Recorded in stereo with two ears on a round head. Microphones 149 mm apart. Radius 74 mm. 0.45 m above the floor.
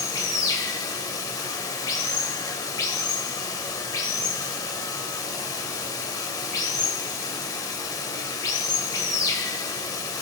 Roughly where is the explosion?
I don't hear an explosion.